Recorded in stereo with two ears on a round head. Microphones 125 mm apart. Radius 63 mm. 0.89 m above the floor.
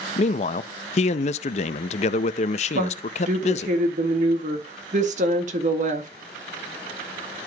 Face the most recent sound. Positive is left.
turn(degrees=-55)  # may be behind; listen again after turning